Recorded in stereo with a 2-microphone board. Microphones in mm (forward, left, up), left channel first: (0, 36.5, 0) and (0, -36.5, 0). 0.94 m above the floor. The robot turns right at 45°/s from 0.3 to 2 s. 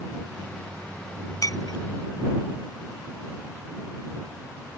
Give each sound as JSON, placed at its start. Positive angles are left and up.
{"t": 1.4, "sound": "breaking glass", "side_deg": 50}